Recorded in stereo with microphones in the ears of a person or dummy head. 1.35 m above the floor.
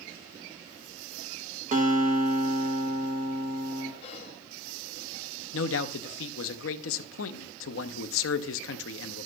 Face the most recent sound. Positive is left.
turn(degrees=70)  # may be behind; listen again after turning